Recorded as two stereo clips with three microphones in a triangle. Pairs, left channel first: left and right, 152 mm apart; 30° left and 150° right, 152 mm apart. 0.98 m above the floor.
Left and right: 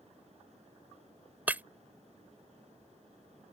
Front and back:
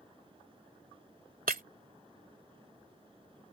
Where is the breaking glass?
170° right.